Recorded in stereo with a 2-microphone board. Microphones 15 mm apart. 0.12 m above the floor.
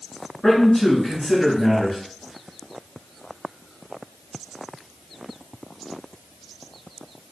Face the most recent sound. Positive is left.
turn(degrees=30)  # may be behind; listen again after turning